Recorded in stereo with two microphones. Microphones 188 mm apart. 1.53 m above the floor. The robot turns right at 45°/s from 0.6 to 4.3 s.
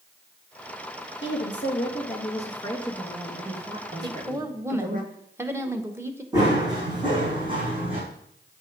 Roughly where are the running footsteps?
Right.